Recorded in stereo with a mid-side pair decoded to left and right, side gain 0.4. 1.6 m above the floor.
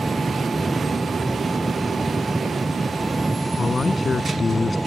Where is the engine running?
15° right.